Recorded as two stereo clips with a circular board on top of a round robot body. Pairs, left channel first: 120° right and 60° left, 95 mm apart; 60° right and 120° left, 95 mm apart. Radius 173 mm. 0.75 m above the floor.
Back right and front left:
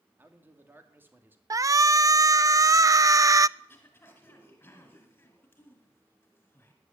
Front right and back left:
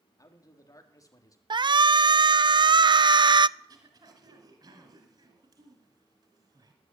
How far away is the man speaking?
About 2.5 m.